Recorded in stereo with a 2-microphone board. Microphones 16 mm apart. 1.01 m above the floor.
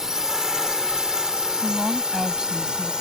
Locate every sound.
0.0 s a drone: 40° right (ahead or behind); by 3.0 s 65° right (ahead or behind)
1.6 s a woman speaking: 60° right (ahead or behind)